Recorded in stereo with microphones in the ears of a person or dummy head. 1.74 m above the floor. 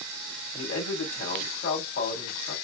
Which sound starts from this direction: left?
A man speaking, at 0.5 s.